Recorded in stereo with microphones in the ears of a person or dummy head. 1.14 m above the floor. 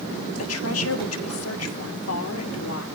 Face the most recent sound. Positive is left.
turn(degrees=75)  # may be behind; listen again after turning